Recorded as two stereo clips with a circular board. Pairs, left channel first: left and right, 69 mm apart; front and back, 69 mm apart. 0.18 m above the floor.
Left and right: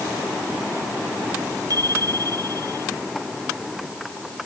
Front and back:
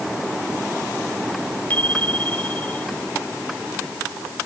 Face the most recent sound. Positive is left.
turn(degrees=-70)